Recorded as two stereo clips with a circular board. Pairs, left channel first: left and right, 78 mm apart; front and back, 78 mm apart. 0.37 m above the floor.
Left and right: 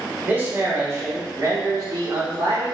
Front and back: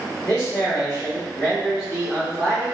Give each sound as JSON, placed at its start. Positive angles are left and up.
{"t": 0.2, "sound": "a man speaking", "azimuth_deg": -40, "distance_m": 1.2}